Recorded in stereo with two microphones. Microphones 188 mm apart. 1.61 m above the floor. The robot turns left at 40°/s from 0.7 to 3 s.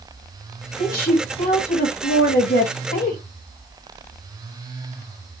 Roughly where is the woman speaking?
Behind left.